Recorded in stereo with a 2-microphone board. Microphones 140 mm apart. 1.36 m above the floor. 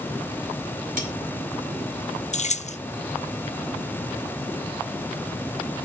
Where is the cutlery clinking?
75° right (ahead or behind), 4.5 m.